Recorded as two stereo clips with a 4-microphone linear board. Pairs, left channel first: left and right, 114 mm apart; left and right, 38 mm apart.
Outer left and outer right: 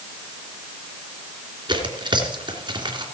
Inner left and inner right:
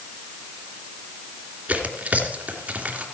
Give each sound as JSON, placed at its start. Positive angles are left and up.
{"t": 1.7, "sound": "tearing paper", "side_deg": -45, "distance_m": 3.0}